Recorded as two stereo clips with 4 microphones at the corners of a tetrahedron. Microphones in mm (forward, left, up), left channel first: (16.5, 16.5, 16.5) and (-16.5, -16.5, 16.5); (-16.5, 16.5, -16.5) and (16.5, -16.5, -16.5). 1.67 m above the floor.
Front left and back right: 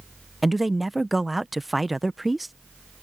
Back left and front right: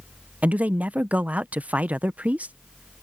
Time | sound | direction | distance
0.4 | a man speaking | 50° right | ?